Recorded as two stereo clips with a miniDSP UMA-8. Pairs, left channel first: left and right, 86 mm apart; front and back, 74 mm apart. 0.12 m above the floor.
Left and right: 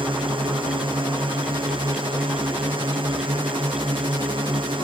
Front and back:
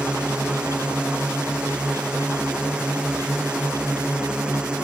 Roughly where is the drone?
Right.